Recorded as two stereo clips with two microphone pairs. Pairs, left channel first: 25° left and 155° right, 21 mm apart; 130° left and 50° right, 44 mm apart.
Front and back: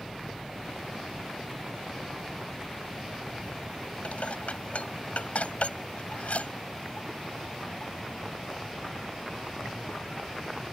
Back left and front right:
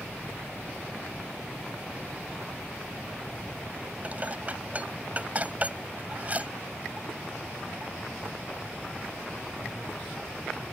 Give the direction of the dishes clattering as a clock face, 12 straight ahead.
12 o'clock.